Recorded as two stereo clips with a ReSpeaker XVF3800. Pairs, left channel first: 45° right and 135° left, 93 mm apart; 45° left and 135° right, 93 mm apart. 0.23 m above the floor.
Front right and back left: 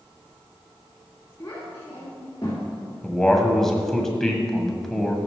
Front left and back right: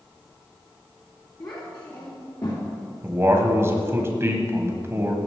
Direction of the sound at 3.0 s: 125° right.